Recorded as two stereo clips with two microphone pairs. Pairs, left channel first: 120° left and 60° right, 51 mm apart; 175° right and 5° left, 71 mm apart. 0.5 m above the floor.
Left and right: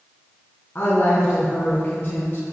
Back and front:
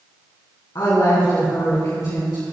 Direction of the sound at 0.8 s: 165° left.